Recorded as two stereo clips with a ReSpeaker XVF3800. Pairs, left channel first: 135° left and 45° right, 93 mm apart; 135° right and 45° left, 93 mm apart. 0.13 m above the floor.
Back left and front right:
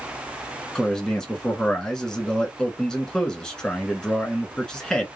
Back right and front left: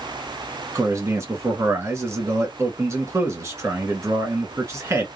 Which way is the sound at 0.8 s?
55° left.